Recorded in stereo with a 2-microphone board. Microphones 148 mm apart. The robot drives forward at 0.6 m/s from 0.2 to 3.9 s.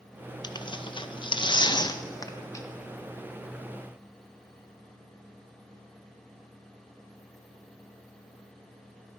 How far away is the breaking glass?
No breaking glass in this recording.